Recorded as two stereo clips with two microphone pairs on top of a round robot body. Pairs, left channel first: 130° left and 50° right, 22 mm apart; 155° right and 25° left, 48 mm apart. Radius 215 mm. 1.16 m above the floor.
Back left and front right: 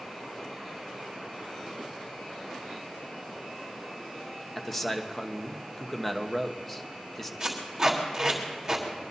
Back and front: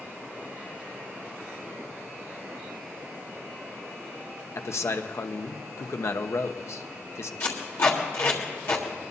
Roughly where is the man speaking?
Behind right.